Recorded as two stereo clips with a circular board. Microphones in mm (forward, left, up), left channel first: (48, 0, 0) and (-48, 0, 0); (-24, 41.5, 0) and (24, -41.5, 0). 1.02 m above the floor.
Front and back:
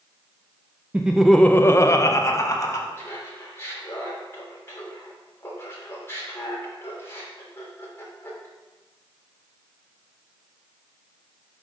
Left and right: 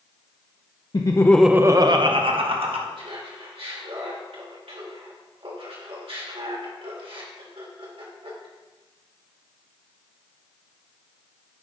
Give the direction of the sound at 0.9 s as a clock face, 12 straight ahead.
8 o'clock.